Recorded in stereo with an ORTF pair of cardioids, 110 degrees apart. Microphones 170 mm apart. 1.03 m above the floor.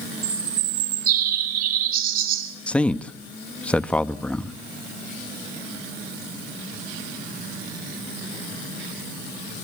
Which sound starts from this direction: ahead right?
A bird, at 0.2 s.